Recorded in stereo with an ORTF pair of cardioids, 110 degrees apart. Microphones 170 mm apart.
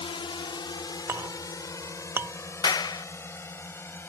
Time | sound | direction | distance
0.0 | a drone | 30° left | ?
1.1 | a clink | 15° right | ?
2.6 | a clap | 25° left | ?